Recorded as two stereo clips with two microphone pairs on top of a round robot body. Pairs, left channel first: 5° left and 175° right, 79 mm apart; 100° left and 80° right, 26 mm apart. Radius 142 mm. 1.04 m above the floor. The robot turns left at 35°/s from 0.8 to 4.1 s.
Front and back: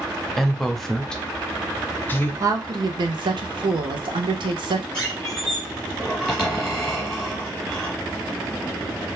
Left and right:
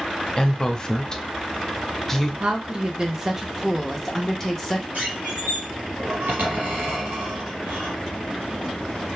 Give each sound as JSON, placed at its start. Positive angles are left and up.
{"t": 0.4, "sound": "a woman speaking", "azimuth_deg": 85, "distance_m": 0.7}
{"t": 2.4, "sound": "a woman speaking", "azimuth_deg": -120, "distance_m": 0.7}
{"t": 4.9, "sound": "a squeak", "azimuth_deg": -75, "distance_m": 1.1}